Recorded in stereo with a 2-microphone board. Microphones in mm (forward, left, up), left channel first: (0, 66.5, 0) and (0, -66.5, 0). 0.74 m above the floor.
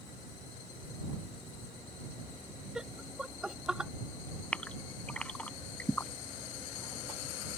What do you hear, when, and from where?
2.8 s laughter: 5° right (ahead or behind)
4.5 s a gasp: 10° left (ahead or behind)